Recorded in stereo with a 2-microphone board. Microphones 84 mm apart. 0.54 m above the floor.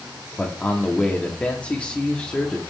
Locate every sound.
0.4 s a man speaking: 15° left (ahead or behind), 0.9 m